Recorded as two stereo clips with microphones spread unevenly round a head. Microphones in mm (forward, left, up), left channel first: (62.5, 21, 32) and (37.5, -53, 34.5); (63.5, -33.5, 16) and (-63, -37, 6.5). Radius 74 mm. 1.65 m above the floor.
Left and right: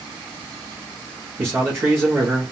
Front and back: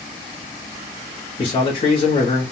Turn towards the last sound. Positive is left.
turn(degrees=-45)